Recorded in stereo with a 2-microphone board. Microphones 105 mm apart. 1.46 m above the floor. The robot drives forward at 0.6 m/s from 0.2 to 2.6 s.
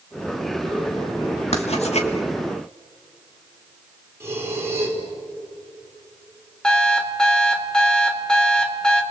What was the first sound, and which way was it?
Writing, 70° left (ahead or behind).